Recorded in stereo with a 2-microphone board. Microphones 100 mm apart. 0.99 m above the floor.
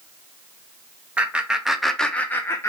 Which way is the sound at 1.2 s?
15° right (ahead or behind).